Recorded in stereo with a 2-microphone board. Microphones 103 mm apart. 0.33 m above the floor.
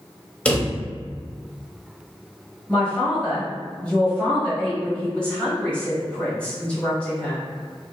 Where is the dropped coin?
I don't hear a dropped coin.